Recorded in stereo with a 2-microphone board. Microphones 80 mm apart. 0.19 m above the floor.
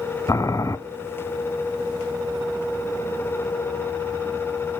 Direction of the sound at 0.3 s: 40° left (ahead or behind).